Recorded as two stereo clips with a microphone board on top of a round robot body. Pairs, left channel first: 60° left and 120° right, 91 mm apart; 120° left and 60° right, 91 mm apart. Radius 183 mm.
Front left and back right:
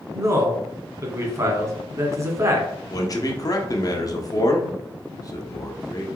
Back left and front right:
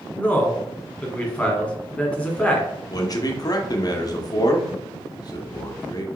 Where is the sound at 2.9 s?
95° left, 1.1 m.